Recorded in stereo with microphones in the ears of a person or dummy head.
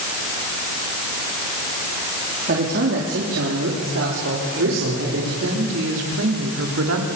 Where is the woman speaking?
85° right, 4.5 m.